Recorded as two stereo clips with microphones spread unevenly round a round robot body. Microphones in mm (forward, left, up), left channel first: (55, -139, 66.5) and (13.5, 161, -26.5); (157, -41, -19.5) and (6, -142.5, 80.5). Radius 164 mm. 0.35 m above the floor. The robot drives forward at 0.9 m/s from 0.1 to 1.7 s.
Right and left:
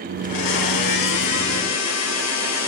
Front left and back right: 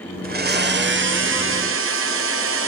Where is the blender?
90° right, 2 m; by 2.7 s 130° right, 2.5 m.